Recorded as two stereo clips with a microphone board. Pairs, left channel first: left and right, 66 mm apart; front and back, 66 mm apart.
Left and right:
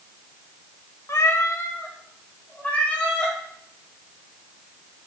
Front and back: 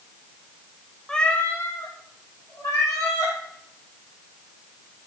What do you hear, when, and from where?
1.1 s a cat meowing: 80° left, 0.6 m; by 3.4 s 20° left, 2 m